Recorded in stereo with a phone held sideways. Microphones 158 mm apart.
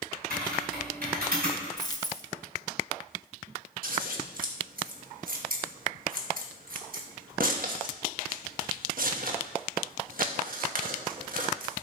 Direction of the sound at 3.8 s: 65° right (ahead or behind).